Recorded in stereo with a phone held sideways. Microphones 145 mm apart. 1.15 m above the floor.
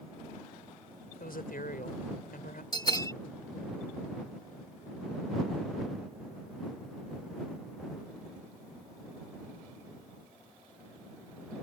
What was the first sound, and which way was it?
A woman speaking, 80° left.